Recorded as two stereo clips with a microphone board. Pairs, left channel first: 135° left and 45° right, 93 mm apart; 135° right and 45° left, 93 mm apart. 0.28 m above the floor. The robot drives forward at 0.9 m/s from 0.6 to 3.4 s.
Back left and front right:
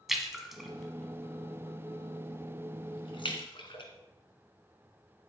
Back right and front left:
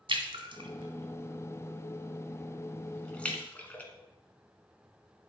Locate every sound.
0.1 s a splash: 40° left, 1.4 m; by 3.8 s 150° left, 1.9 m